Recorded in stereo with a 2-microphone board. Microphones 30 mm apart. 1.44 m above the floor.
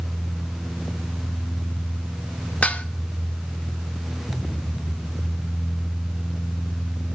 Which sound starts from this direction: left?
Dishes clattering, at 2.6 s.